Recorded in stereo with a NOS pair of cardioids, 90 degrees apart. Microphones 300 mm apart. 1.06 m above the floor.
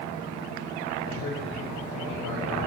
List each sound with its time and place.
1.1 s a man speaking: 70° left, 1.7 m